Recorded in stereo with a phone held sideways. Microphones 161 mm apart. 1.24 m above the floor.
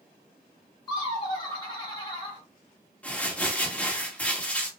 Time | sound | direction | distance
0.9 | laughter | 25° left (ahead or behind) | 2 m
3.0 | crumpling | 10° left (ahead or behind) | 1.6 m